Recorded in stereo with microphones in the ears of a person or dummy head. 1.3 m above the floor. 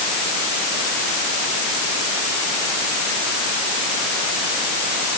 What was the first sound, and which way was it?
Only background noise.